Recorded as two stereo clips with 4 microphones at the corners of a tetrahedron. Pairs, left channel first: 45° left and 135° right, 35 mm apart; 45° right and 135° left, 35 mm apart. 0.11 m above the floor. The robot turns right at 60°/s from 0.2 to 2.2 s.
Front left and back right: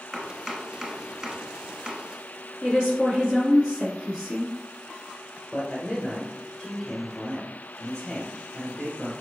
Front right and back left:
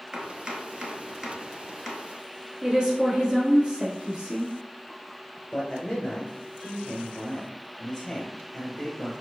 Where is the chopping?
120° left, 1.0 m; by 2.0 s 130° right, 1.0 m.